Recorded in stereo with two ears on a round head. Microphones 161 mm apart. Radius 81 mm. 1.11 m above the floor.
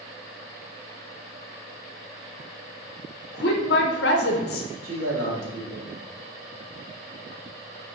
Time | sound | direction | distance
3.3 | a woman speaking | 65° left (ahead or behind) | 1.1 m
4.8 | a man speaking | 80° right | 1.8 m